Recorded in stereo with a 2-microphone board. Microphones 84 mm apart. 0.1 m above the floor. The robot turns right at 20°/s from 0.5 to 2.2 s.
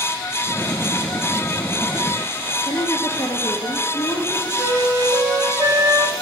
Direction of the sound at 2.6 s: 30° left (ahead or behind).